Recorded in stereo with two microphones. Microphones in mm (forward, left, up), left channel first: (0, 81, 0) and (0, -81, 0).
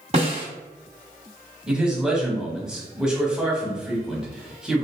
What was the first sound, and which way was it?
A snare drum, 45° right (ahead or behind).